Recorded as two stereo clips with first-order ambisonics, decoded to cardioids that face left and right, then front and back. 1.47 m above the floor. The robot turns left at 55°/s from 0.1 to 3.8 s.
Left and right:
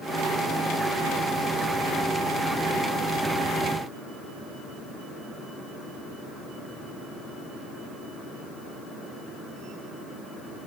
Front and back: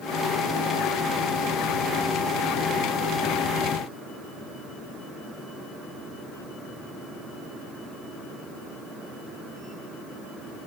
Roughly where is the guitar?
I don't hear a guitar.